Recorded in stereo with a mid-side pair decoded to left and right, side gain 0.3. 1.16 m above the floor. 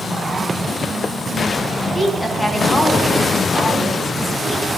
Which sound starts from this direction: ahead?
A woman speaking, at 1.9 s.